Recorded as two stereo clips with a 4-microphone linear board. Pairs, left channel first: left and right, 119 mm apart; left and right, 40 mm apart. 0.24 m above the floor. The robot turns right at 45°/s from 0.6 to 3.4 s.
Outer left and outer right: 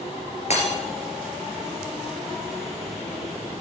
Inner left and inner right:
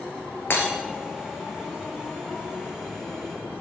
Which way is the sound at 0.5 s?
75° left (ahead or behind).